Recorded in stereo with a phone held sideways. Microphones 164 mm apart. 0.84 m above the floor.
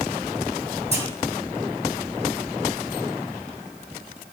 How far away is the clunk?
About 3 m.